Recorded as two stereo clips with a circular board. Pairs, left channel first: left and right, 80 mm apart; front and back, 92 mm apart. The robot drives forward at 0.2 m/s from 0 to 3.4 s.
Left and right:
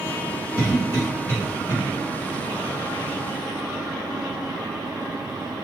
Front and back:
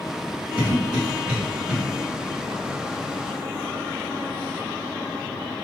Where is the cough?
80° left, 1.6 m; by 1.8 s 100° left, 1.6 m.